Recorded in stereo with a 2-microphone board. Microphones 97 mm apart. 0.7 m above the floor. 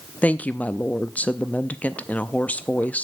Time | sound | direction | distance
0.2 | a woman speaking | 15° left (ahead or behind) | 0.5 m